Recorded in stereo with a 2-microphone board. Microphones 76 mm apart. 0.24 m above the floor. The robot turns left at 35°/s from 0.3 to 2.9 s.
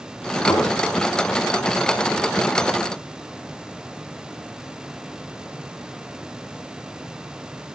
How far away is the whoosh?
About 6 m.